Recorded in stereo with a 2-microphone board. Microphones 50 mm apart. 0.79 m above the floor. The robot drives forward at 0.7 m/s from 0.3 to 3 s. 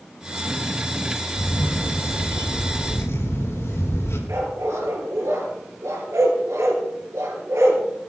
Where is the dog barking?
85° right, 4 m.